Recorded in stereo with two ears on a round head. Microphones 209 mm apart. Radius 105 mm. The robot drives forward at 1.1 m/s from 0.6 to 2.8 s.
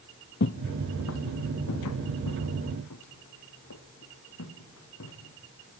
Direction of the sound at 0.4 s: 50° left (ahead or behind).